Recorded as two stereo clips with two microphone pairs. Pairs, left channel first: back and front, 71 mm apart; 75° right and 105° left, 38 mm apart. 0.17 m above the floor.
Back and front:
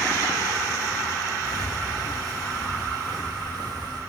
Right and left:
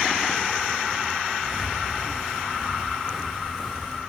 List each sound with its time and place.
1.5 s footsteps: 30° left, 6.5 m; by 4.0 s 15° left, 5.5 m